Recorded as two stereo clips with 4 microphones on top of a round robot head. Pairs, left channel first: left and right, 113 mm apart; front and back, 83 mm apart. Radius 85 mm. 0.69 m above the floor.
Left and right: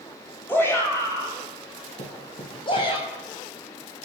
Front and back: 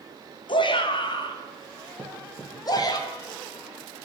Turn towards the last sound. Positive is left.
turn(degrees=105)